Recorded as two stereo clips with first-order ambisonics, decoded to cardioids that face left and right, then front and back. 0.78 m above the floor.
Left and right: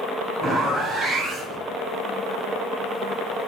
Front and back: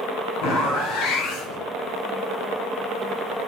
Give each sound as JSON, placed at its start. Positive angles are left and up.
{"t": 0.4, "sound": "a zipper", "azimuth_deg": -10, "distance_m": 4.0}